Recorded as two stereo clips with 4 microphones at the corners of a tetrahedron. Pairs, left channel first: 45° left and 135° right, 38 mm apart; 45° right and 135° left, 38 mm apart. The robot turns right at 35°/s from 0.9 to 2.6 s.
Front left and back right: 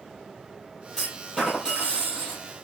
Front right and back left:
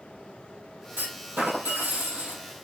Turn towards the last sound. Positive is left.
turn(degrees=-170)